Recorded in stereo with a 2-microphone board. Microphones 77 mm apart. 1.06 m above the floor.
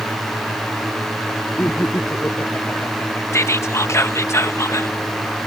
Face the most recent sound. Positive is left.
turn(degrees=40)  # may be behind; listen again after turning